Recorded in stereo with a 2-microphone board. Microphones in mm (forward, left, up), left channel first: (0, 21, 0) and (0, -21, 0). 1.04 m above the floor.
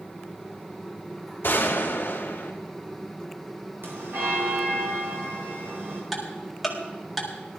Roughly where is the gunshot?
Left.